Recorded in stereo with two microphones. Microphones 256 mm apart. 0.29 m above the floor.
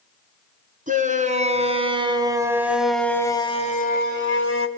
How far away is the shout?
About 3 m.